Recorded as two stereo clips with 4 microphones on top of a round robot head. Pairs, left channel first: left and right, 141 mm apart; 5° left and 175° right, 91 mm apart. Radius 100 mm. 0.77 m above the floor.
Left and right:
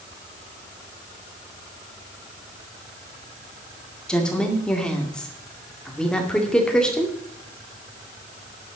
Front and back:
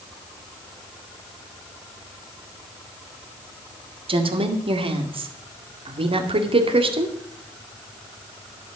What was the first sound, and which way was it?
A woman speaking, 175° left.